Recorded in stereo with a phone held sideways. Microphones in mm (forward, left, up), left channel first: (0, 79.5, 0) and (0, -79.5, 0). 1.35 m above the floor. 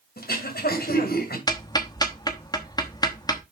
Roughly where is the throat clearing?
Left.